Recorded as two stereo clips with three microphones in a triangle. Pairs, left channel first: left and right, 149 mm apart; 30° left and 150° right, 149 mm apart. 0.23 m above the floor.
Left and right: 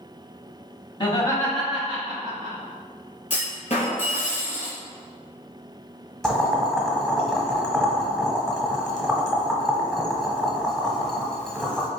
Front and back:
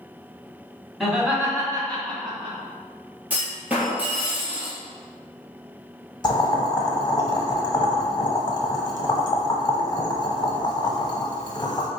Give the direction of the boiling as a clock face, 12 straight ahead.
12 o'clock.